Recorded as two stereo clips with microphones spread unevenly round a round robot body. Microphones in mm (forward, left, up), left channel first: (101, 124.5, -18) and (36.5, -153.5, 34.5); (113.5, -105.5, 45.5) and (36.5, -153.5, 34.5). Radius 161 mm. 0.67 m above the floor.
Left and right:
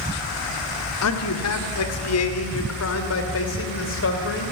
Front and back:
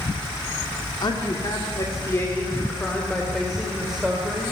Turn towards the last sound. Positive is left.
turn(degrees=130)